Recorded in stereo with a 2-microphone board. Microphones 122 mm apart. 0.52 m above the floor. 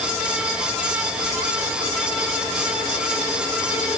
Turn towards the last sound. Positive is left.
No sound to turn to.